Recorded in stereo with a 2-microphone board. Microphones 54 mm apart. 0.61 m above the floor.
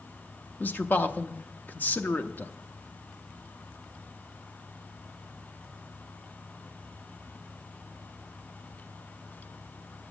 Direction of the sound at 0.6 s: 35° left (ahead or behind).